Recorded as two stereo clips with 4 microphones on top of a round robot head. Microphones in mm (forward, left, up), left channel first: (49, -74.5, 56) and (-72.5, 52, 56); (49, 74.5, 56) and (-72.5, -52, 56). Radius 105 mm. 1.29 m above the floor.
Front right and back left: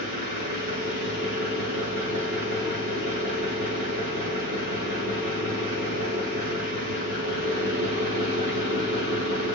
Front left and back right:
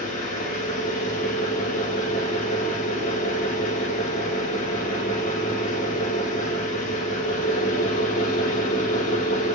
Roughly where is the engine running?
Left.